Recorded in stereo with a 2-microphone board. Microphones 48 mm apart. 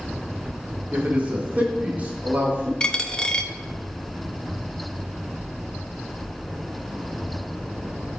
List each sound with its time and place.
0.9 s a man speaking: 35° right (ahead or behind), 1.6 m
2.8 s a dropped coin: 20° left (ahead or behind), 0.6 m